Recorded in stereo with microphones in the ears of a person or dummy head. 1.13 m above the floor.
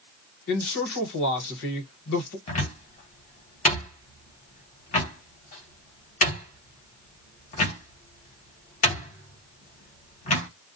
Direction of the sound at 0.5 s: 65° left (ahead or behind).